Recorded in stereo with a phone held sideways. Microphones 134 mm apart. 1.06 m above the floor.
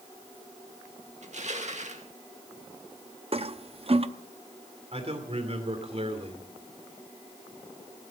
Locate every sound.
1.2 s crushing: 60° right (ahead or behind), 1.7 m
3.3 s a toilet flushing: 45° right (ahead or behind), 0.6 m
4.9 s a man speaking: 50° right (ahead or behind), 3 m